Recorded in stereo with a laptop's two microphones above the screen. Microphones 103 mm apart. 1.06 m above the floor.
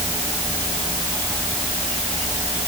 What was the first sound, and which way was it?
Only background noise.